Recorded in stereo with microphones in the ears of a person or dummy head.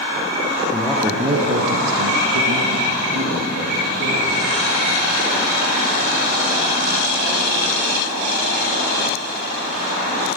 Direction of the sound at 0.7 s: 10° left (ahead or behind).